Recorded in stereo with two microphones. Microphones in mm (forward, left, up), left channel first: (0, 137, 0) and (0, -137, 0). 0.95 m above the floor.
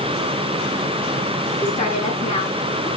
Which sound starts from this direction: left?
A woman speaking, at 1.6 s.